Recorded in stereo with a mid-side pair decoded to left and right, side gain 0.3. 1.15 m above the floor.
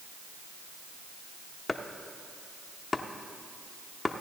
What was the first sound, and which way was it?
Chopping, 35° left.